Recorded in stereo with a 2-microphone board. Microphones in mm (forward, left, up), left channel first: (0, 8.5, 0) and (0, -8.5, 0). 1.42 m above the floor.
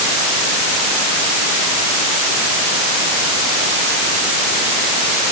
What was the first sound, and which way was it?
Only background noise.